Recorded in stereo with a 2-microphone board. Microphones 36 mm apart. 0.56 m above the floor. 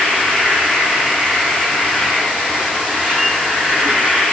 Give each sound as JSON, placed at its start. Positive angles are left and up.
{"t": 0.0, "sound": "an insect", "side_deg": -30, "distance_m": 3.0}